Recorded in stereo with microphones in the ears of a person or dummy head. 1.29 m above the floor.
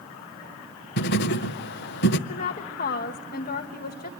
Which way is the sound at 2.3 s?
40° left (ahead or behind).